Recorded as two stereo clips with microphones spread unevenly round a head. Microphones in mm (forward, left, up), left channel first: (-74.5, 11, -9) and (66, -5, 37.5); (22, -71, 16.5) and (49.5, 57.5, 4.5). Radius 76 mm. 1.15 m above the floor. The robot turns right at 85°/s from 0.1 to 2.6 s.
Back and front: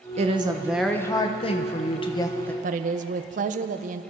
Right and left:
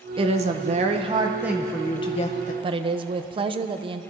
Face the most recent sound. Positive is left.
turn(degrees=35)